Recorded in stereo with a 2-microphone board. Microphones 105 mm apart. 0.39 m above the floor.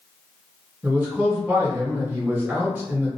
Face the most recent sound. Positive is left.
turn(degrees=-20)  # may be behind; listen again after turning